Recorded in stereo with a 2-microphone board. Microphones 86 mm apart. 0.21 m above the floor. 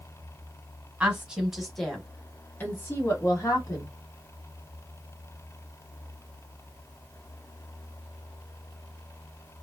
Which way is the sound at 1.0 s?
15° right (ahead or behind).